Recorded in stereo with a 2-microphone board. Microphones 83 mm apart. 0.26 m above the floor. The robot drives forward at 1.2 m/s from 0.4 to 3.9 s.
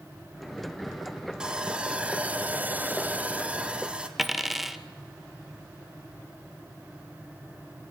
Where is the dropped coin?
Centre (ahead or behind), 1.2 m.